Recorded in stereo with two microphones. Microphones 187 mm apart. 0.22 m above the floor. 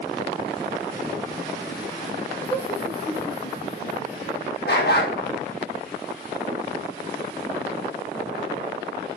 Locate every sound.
2.5 s laughter: 30° left (ahead or behind), 3 m; by 4.5 s 50° left (ahead or behind), 3 m
4.7 s a dog barking: 60° left (ahead or behind), 3 m